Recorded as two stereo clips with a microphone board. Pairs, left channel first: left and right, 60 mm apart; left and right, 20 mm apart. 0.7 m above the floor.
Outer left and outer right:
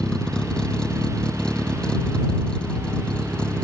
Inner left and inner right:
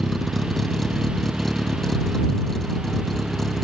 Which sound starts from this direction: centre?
A vehicle, at 0.0 s.